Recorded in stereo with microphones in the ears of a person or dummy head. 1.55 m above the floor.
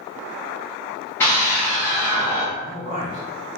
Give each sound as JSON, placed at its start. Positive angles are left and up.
{"t": 1.2, "sound": "a scream", "side_deg": 10, "distance_m": 1.0}
{"t": 2.6, "sound": "a man speaking", "side_deg": -50, "distance_m": 1.6}